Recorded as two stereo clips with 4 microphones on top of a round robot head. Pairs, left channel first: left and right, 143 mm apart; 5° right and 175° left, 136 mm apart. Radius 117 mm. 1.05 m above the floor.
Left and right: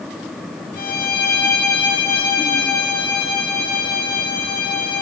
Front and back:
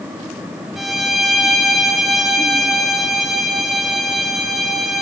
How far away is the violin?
About 3 m.